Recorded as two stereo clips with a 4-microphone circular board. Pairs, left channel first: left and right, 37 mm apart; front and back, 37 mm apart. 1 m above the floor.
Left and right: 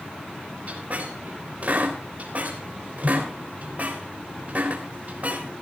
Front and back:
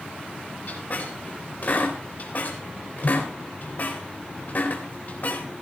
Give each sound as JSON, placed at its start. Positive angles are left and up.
{"t": 0.7, "sound": "a squeak", "azimuth_deg": -45, "distance_m": 3.5}